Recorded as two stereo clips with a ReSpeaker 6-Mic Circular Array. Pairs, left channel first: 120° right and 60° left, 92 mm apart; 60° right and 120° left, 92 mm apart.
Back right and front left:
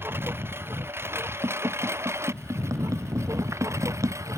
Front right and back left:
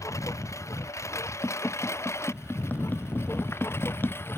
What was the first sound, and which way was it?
A lawn mower, 5° right.